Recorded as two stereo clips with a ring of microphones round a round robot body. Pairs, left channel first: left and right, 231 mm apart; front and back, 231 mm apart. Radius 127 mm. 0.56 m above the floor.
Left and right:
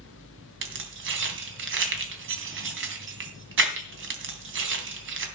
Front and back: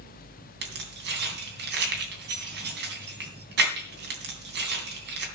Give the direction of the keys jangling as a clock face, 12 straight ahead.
4 o'clock.